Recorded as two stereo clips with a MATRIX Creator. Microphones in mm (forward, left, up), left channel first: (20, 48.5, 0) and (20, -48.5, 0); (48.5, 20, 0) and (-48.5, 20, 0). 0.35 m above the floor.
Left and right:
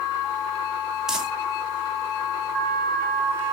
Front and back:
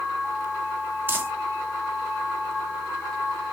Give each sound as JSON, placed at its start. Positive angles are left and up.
{"t": 1.1, "sound": "crumpling", "azimuth_deg": -165, "distance_m": 0.9}